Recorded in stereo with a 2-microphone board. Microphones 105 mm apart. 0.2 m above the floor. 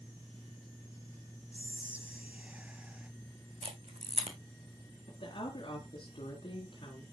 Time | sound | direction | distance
1.5 | whispering | 15° right (ahead or behind) | 1.1 m
3.6 | a camera shutter | 85° right | 3 m
5.1 | a woman speaking | 60° left (ahead or behind) | 3 m